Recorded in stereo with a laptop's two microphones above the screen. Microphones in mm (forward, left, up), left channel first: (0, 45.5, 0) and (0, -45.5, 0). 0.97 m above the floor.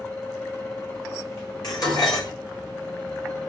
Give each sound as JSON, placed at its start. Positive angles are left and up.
{"t": 0.0, "sound": "a fan", "side_deg": 30, "distance_m": 2.5}
{"t": 1.6, "sound": "dishes clattering", "side_deg": 50, "distance_m": 2.5}